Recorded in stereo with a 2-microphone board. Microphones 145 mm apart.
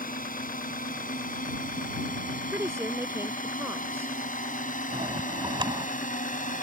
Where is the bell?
35° right (ahead or behind).